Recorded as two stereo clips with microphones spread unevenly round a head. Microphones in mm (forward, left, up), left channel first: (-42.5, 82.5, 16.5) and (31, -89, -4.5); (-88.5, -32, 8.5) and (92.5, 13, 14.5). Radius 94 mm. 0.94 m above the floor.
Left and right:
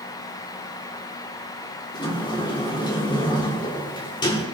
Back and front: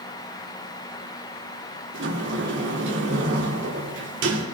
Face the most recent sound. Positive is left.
turn(degrees=45)